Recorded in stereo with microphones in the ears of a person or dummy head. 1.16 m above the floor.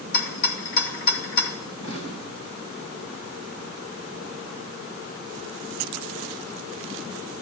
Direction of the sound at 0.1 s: 55° left (ahead or behind).